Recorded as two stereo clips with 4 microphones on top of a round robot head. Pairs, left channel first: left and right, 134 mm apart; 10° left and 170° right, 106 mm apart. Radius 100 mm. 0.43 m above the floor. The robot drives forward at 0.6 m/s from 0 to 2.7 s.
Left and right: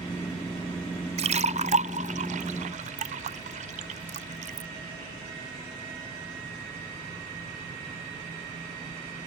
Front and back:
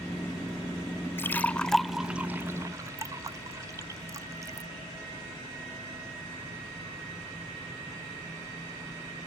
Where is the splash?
60° right; by 4.7 s 110° right.